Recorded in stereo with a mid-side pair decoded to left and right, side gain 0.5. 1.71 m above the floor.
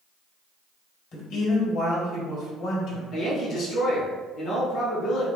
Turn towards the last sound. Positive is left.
turn(degrees=60)